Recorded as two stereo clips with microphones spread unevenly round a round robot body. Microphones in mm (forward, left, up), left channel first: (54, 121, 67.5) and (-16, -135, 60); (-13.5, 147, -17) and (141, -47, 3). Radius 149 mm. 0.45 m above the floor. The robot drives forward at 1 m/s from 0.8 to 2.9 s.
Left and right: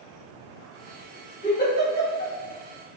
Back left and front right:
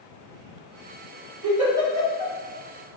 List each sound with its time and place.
1.4 s a giggle: 20° left, 1.8 m; by 2.4 s 40° left, 1.1 m